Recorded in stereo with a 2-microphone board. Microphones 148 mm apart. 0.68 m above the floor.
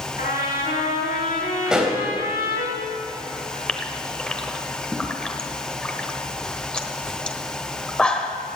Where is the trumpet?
70° left (ahead or behind), 4.5 m.